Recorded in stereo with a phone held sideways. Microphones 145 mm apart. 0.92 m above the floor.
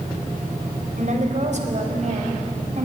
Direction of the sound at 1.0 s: 55° right (ahead or behind).